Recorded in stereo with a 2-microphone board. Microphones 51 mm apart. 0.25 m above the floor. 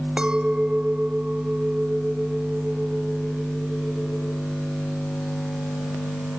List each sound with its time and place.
0.2 s a clink: 20° right (ahead or behind)